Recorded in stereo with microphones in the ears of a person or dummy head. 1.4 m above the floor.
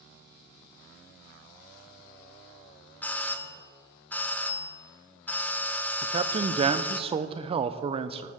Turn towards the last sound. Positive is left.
turn(degrees=-25)  # may be behind; listen again after turning